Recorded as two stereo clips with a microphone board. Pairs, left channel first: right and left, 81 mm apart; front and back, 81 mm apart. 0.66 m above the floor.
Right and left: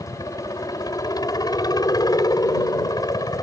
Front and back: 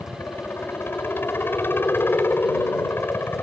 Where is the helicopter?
60° right.